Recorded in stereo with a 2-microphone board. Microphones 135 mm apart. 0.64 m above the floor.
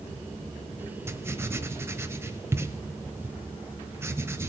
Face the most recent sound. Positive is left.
turn(degrees=-20)  # may be behind; listen again after turning